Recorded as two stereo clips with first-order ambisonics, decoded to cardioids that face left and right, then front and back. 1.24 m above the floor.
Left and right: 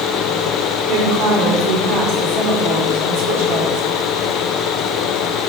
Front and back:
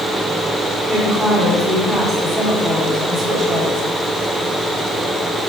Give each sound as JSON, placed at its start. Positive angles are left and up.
{"t": 0.9, "sound": "a woman speaking", "azimuth_deg": -95, "distance_m": 4.0}